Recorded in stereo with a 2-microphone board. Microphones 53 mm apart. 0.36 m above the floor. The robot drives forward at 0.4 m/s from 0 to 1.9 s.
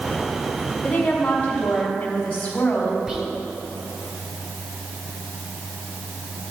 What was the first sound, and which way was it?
A woman speaking, 20° left (ahead or behind).